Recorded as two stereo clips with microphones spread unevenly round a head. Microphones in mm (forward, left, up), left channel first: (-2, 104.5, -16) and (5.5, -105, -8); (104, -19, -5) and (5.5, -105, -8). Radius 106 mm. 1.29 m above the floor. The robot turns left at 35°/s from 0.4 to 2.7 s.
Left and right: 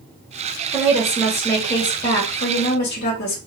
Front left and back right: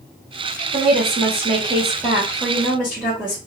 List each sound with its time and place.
0.7 s a woman speaking: 155° right, 1.7 m; by 3.4 s 135° left, 1.7 m